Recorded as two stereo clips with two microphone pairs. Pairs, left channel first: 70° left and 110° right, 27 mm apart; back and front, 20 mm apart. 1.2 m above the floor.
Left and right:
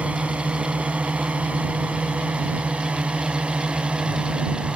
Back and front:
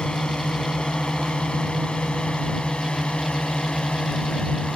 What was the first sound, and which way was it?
A drone, 145° right.